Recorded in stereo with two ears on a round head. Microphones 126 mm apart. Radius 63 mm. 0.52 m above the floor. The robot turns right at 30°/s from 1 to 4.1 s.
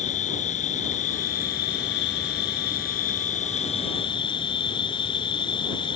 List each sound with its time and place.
0.0 s an insect: 50° left; by 6.0 s 145° left